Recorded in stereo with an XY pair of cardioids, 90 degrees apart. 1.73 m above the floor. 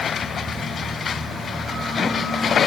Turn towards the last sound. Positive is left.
No sound to turn to.